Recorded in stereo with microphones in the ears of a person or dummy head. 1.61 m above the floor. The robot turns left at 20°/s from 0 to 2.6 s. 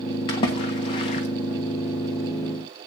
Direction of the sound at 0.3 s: 25° left (ahead or behind).